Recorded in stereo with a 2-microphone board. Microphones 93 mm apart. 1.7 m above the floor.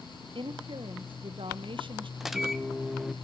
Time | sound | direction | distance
0.3 | a woman speaking | 60° right (ahead or behind) | 1.2 m
2.2 | a microwave | 5° right (ahead or behind) | 0.8 m